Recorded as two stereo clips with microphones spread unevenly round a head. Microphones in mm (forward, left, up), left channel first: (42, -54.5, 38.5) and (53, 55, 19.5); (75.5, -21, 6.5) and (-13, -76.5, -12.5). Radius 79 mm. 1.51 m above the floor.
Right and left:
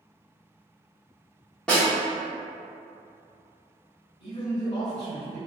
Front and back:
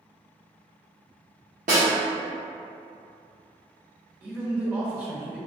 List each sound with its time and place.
1.7 s a snare drum: straight behind, 1.1 m
4.2 s a man speaking: 70° right, 1.3 m